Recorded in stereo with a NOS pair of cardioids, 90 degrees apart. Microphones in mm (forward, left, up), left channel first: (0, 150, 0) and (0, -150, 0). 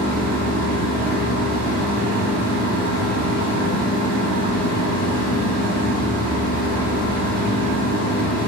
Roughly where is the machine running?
Ahead right.